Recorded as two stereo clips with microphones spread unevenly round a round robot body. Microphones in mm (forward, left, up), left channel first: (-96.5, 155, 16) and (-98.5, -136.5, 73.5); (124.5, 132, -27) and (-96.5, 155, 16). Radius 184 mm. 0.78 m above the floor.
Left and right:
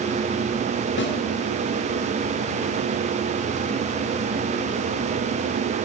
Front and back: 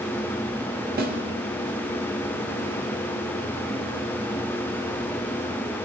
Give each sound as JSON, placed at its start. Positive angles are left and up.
{"t": 1.0, "sound": "a snare drum", "azimuth_deg": 125, "distance_m": 1.6}